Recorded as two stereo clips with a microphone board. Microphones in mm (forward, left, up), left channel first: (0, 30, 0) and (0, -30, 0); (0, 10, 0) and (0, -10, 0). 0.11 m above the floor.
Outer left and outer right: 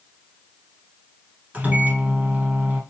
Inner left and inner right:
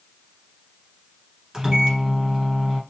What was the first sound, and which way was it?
A microwave, 25° right (ahead or behind).